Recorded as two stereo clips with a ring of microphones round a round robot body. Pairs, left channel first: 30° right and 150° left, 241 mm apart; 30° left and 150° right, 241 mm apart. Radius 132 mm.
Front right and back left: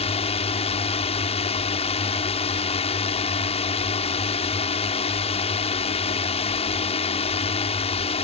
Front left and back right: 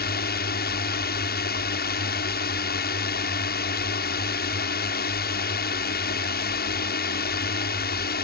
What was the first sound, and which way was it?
A drone, 20° left.